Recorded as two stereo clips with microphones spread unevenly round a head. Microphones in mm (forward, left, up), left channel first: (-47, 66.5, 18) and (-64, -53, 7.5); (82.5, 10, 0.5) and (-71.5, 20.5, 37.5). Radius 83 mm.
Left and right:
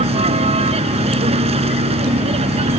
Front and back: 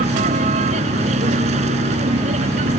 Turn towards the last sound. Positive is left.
turn(degrees=-135)